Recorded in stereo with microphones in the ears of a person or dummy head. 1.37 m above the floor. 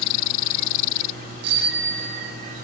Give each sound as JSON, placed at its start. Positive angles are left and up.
{"t": 1.4, "sound": "a bicycle bell", "side_deg": -60, "distance_m": 2.0}